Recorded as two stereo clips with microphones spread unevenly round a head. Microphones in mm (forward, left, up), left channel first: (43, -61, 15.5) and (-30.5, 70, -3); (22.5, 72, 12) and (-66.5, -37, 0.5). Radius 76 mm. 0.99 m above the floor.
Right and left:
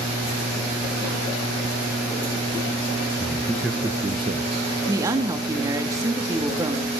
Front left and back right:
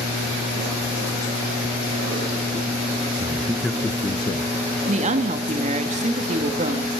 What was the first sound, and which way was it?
A man speaking, 125° right.